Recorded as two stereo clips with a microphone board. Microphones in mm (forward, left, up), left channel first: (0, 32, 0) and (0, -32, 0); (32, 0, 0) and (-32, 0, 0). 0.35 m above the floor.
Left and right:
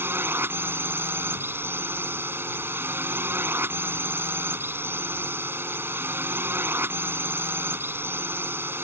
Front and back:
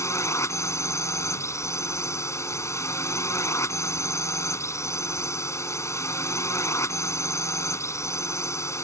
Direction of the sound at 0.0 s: 40° right.